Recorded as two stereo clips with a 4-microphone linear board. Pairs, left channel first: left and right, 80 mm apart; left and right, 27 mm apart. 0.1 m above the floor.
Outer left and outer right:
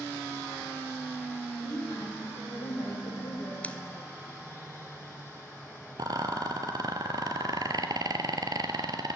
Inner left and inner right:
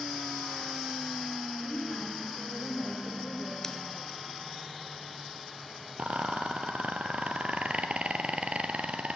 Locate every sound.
1.6 s a woman speaking: 75° left (ahead or behind), 6.5 m
3.6 s scissors: 20° left (ahead or behind), 0.5 m
6.0 s a rattle: 55° right (ahead or behind), 1.0 m